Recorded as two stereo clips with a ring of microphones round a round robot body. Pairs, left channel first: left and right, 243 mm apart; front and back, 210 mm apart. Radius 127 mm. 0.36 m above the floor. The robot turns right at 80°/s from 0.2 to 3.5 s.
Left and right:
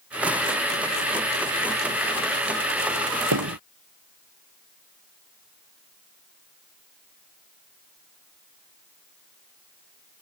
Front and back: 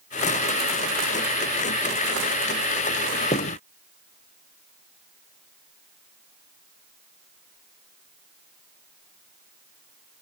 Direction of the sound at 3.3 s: 70° right.